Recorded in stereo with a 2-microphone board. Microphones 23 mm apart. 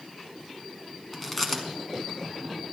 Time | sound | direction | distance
1.1 | chewing | 5° left (ahead or behind) | 1.5 m